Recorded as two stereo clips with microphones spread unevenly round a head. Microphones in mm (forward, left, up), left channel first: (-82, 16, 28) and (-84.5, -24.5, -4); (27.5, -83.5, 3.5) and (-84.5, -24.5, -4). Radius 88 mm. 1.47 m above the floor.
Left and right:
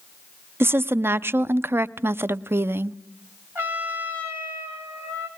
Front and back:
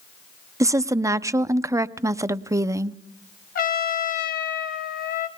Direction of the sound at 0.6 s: 140° right.